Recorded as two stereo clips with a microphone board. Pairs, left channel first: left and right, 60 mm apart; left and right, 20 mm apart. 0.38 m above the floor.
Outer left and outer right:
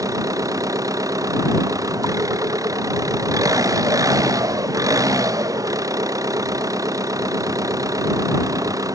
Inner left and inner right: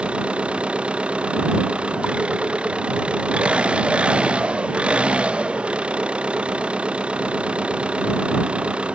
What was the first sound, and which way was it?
An engine running, 80° right.